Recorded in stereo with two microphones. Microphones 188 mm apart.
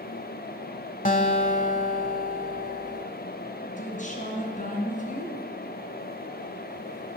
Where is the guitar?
45° left (ahead or behind), 1.1 m.